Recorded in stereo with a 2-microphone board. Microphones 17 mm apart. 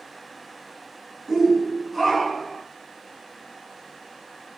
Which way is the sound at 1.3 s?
25° right (ahead or behind).